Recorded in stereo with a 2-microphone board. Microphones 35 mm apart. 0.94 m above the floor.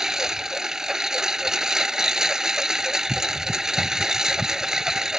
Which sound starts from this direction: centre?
A lawn mower, at 0.0 s.